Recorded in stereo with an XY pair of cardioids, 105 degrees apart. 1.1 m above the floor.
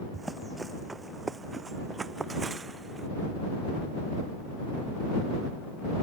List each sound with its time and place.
0.1 s running footsteps: 20° right; by 3.1 s 35° right